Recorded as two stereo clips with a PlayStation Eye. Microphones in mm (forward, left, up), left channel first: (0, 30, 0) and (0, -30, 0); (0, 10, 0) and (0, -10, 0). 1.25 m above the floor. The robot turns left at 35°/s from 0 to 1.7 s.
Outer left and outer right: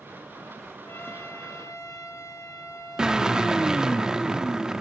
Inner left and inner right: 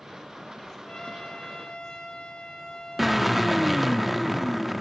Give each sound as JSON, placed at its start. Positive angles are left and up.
{"t": 0.8, "sound": "a trumpet", "azimuth_deg": 140, "distance_m": 2.5}
{"t": 3.0, "sound": "a drill", "side_deg": -10, "distance_m": 0.8}